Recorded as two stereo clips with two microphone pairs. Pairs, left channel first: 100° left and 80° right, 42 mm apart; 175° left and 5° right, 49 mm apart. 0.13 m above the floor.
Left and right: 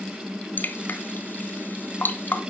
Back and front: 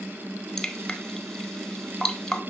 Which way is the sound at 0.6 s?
105° left.